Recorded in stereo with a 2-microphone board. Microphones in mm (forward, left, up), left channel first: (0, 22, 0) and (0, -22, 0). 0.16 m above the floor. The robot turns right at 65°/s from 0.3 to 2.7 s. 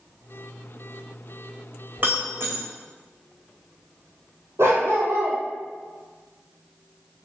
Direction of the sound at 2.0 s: 45° right (ahead or behind).